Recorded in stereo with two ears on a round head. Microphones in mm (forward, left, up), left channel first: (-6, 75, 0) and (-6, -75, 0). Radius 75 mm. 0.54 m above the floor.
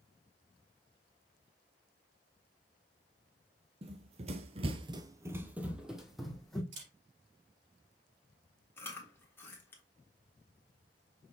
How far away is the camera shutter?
About 3.5 m.